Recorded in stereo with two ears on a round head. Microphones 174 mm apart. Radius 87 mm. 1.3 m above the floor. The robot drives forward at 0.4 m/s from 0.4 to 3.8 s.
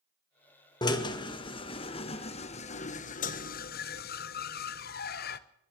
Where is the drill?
20° left (ahead or behind), 1.9 m; by 5.4 s 50° left (ahead or behind), 0.9 m.